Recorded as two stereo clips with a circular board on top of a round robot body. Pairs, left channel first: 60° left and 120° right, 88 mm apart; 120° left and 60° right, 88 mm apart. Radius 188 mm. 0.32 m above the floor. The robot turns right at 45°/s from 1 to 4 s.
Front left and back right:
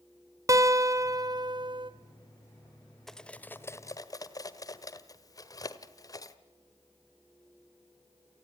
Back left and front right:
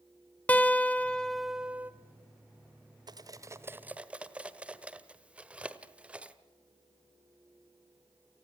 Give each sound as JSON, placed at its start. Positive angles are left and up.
{"t": 0.5, "sound": "a guitar", "azimuth_deg": -170, "distance_m": 1.7}
{"t": 3.1, "sound": "cutlery clinking", "azimuth_deg": -25, "distance_m": 1.4}